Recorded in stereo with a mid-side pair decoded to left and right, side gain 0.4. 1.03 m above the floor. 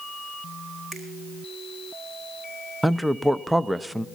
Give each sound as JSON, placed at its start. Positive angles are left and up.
{"t": 0.9, "sound": "a finger snap", "azimuth_deg": -55, "distance_m": 4.5}
{"t": 2.8, "sound": "a man speaking", "azimuth_deg": -5, "distance_m": 0.6}